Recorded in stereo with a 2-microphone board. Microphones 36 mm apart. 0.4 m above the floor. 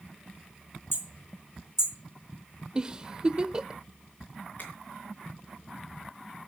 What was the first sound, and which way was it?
Hammering, 75° left (ahead or behind).